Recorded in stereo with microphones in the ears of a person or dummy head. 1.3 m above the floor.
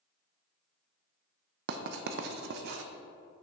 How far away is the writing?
About 0.6 m.